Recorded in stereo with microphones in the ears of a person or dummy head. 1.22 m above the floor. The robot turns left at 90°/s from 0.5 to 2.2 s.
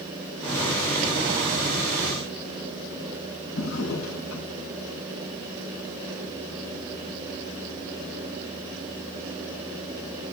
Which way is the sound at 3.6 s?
75° left (ahead or behind).